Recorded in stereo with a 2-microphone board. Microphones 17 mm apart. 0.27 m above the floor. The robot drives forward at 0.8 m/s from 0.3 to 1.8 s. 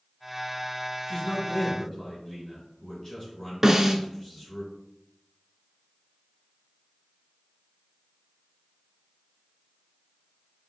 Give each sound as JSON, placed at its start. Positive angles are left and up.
{"t": 1.1, "sound": "a man speaking", "side_deg": 35, "distance_m": 2.0}
{"t": 3.6, "sound": "a snare drum", "side_deg": -20, "distance_m": 0.8}